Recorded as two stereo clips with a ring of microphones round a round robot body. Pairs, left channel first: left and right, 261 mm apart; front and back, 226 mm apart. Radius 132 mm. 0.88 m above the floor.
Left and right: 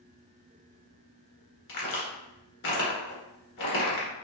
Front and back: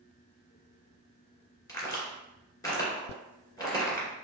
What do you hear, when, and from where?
1.7 s a crack: 75° left, 2 m